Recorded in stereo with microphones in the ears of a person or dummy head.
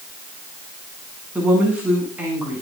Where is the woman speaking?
10° right (ahead or behind), 9.5 m.